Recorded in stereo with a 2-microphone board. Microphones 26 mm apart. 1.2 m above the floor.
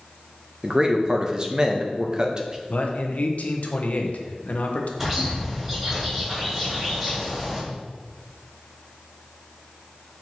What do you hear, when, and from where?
0.6 s a man speaking: 30° right (ahead or behind), 0.6 m
2.7 s a man speaking: 60° left (ahead or behind), 0.7 m
5.0 s a bird: 10° right (ahead or behind), 2 m